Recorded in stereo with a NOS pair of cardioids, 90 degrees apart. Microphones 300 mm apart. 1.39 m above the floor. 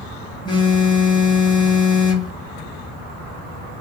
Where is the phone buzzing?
15° left, 0.8 m.